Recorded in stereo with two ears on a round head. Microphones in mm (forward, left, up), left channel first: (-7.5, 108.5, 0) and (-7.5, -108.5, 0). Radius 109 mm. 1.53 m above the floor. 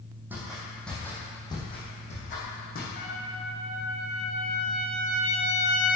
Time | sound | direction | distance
0.3 | footsteps | 10° right (ahead or behind) | 3.5 m
3.0 | a trumpet | 40° left (ahead or behind) | 1.7 m